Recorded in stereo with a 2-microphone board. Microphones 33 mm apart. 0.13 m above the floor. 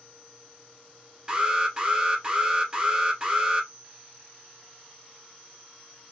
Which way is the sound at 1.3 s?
20° right (ahead or behind).